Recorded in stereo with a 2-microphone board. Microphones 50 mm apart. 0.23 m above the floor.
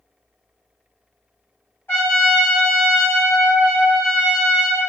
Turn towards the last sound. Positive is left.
turn(degrees=50)  # may be behind; listen again after turning